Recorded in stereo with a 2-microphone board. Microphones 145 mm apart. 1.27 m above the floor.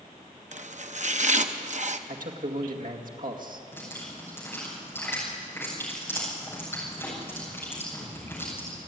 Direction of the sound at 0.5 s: 55° right (ahead or behind).